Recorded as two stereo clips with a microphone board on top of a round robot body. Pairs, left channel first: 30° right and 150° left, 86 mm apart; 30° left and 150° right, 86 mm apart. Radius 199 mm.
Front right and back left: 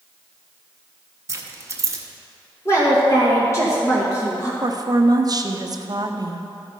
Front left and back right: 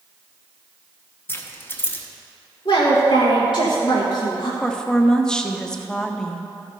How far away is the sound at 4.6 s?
About 0.9 m.